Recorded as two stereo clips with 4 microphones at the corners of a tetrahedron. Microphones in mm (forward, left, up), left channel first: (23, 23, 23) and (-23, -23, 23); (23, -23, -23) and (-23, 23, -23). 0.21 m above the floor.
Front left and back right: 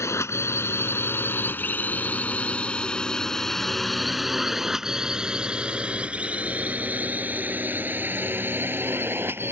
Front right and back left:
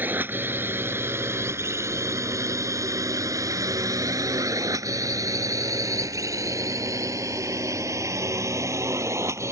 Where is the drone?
80° left; by 9.5 s 170° left.